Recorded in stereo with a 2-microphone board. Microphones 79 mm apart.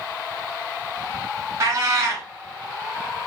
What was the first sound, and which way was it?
A cat meowing, 45° right (ahead or behind).